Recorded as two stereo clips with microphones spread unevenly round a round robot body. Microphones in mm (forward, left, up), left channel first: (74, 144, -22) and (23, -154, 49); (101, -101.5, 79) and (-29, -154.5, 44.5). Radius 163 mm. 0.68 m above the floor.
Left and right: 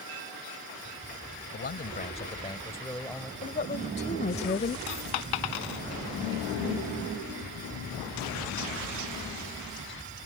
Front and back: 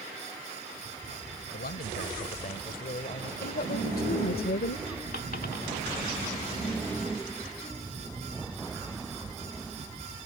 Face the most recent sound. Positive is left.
turn(degrees=75)